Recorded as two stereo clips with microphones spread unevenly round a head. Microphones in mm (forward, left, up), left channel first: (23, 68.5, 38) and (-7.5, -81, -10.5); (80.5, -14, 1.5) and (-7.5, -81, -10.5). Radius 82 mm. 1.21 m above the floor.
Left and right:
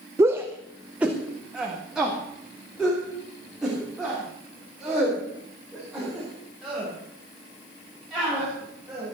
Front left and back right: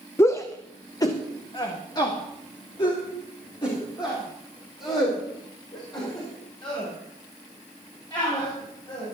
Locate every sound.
0.2 s a shout: 35° right, 0.7 m; by 9.1 s 10° right, 7.5 m